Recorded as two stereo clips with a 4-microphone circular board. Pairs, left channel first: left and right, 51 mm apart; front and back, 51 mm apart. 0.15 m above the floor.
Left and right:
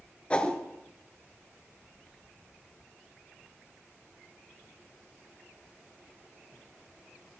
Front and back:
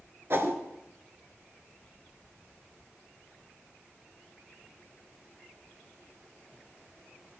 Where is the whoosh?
155° left, 1.1 m.